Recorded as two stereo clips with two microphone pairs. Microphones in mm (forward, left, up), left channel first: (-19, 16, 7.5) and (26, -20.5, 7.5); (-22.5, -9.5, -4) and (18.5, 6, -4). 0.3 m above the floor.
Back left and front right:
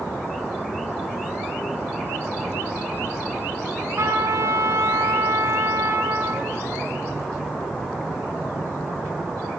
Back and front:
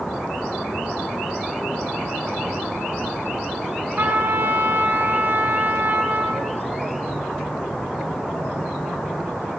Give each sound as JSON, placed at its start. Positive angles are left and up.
{"t": 4.0, "sound": "a trumpet", "azimuth_deg": -10, "distance_m": 3.5}